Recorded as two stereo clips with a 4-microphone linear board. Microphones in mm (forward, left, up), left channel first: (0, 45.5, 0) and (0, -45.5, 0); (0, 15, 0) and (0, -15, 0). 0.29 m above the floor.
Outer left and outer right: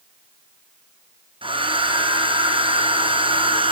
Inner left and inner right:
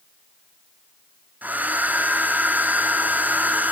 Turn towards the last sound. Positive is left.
turn(degrees=-80)